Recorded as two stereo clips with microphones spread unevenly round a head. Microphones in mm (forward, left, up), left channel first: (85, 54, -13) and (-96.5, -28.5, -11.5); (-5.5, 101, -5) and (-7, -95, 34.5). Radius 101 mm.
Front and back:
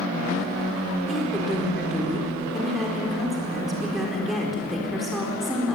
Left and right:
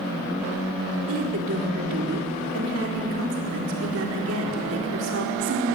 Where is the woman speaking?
65° right, 4 m.